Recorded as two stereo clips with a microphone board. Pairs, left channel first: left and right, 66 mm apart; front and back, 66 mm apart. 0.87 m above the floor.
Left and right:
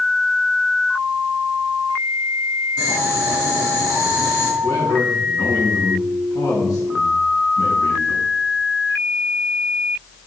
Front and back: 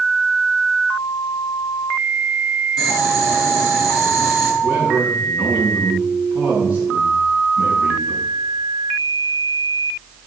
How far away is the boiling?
About 6.5 m.